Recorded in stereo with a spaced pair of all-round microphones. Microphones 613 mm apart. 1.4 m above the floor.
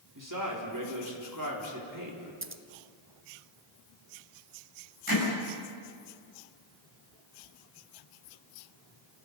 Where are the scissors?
20° right (ahead or behind), 1.0 m.